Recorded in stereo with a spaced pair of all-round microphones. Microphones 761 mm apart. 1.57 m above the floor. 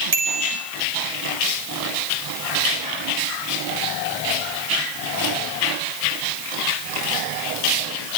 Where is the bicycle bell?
55° right (ahead or behind), 5.5 m.